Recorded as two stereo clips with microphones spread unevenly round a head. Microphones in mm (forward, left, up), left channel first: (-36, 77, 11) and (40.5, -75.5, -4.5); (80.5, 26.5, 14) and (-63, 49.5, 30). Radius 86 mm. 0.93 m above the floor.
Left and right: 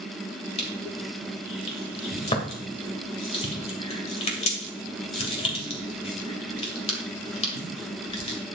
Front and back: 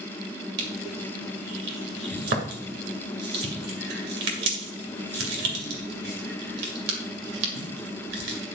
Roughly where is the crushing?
Behind.